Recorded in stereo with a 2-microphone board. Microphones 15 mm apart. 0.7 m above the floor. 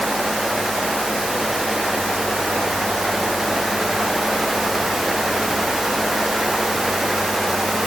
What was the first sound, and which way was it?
Only background noise.